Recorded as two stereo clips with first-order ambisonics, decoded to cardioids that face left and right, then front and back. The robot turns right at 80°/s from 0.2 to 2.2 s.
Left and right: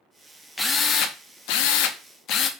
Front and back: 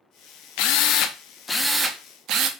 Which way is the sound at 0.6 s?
5° left.